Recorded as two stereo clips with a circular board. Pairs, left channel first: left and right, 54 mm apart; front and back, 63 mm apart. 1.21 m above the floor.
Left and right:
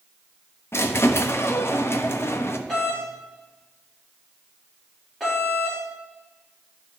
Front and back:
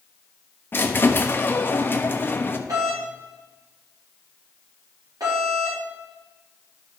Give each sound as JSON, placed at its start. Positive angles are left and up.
{"t": 0.7, "sound": "a squeak", "azimuth_deg": 50, "distance_m": 0.8}
{"t": 2.7, "sound": "a doorbell", "azimuth_deg": 175, "distance_m": 4.0}